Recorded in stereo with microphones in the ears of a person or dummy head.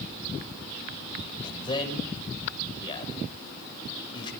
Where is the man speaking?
35° left (ahead or behind), 6.5 m.